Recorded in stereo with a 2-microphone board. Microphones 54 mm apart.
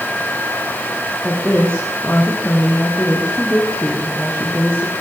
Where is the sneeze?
I don't hear a sneeze.